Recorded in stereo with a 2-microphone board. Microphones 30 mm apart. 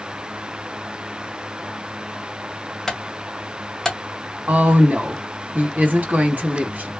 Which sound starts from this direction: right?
A woman speaking, at 4.5 s.